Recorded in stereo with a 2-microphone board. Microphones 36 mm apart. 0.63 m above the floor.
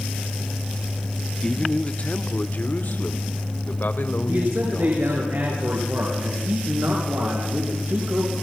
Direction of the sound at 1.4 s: 20° left (ahead or behind).